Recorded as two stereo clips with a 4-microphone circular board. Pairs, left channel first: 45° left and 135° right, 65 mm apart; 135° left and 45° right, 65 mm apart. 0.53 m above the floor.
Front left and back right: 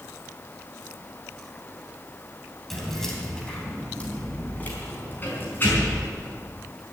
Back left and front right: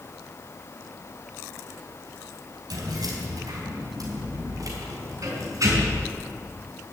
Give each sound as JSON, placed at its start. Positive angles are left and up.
{"t": 2.7, "sound": "keys jangling", "azimuth_deg": -45, "distance_m": 3.0}